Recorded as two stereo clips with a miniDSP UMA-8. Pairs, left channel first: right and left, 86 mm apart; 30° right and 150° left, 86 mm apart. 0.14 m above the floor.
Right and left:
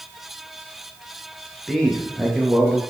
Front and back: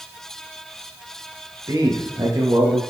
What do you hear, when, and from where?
1.7 s a man speaking: 175° right, 2.5 m